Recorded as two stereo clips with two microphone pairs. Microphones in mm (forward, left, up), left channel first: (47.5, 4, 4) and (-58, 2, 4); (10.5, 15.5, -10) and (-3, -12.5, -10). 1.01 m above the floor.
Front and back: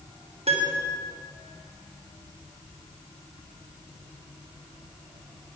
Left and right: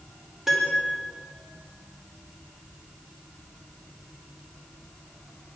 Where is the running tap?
No running tap in this recording.